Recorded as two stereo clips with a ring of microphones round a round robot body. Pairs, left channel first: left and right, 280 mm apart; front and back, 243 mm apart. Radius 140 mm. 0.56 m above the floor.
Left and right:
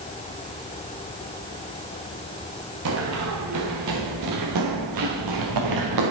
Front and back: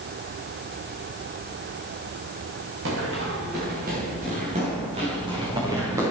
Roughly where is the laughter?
I don't hear laughter.